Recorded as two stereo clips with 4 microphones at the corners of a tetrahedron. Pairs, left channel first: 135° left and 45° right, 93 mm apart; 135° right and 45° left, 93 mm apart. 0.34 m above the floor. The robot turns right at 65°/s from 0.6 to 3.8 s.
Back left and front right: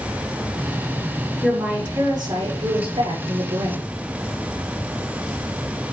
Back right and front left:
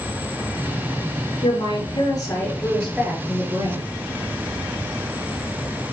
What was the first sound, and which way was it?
A woman speaking, 140° right.